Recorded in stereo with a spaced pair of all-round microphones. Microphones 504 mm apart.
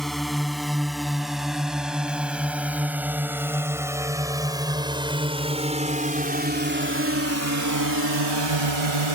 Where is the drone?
Centre (ahead or behind); by 9.1 s 70° right (ahead or behind).